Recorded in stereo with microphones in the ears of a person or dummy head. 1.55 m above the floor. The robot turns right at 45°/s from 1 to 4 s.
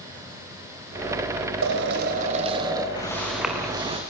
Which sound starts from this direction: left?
Footsteps, at 3.0 s.